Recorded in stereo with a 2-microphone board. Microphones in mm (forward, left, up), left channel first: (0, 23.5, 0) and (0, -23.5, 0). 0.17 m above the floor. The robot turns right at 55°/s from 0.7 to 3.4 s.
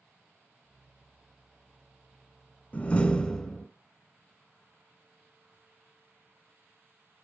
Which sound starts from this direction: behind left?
A door slam, at 2.7 s.